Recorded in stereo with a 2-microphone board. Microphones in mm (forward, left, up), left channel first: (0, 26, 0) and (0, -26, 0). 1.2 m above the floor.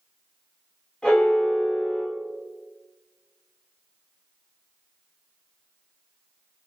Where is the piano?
15° left (ahead or behind), 1.5 m.